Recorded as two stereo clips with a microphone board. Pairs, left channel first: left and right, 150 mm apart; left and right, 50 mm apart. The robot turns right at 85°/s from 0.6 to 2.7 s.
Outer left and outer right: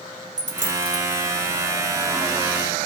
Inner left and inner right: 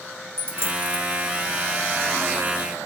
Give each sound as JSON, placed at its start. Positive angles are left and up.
{"t": 0.4, "sound": "a dropped coin", "side_deg": -55, "distance_m": 1.4}